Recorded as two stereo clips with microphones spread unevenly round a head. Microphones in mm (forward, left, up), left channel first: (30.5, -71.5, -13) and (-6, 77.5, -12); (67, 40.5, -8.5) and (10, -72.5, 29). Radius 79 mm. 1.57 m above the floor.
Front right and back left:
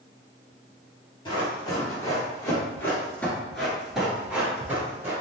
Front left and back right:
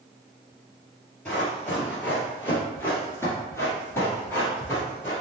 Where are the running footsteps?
30° right, 1.9 m; by 5.1 s 155° left, 1.7 m.